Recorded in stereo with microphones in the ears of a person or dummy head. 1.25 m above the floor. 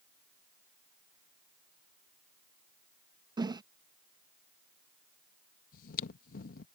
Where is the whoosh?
25° right (ahead or behind).